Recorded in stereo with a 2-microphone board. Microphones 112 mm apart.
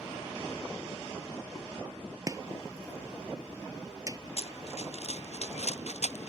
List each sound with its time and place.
2.3 s chopping: 30° right (ahead or behind)
4.4 s running footsteps: 65° left (ahead or behind); by 6.3 s 75° left (ahead or behind)